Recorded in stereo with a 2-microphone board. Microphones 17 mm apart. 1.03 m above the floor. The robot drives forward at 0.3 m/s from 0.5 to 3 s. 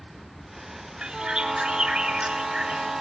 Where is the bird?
60° right (ahead or behind), 6 m; by 3.0 s 55° right (ahead or behind), 6 m.